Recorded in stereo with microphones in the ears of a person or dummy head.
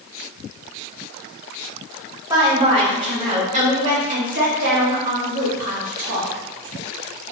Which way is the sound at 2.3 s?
15° right (ahead or behind).